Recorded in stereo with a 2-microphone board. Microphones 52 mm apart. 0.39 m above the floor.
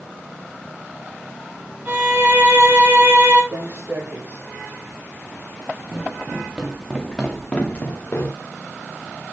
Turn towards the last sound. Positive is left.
turn(degrees=45)  # may be behind; listen again after turning